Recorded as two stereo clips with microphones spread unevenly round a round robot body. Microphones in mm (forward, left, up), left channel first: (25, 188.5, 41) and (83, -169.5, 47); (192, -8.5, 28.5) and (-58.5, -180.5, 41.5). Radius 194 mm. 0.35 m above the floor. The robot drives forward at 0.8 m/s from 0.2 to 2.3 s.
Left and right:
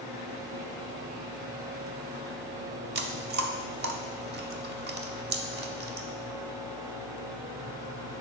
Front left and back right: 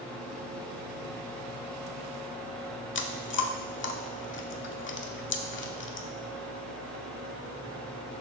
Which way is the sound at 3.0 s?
15° right.